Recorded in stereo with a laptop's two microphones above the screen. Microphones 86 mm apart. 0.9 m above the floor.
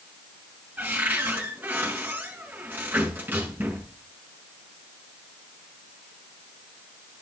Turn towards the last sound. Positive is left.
turn(degrees=-20)  # may be behind; listen again after turning